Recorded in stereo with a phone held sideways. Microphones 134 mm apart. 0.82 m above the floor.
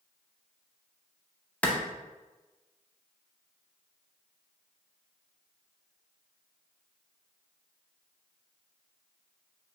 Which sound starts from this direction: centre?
A clap, at 1.6 s.